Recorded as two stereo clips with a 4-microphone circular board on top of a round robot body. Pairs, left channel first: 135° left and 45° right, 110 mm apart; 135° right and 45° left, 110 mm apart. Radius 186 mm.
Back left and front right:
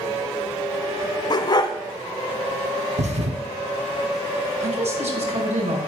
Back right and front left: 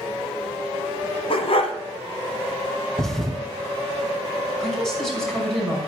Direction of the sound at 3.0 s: 50° right.